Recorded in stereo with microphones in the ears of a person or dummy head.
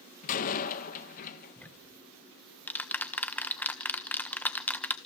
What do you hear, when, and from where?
0.2 s a door slam: 50° left (ahead or behind), 1.5 m
1.6 s ticking: 10° left (ahead or behind), 1.1 m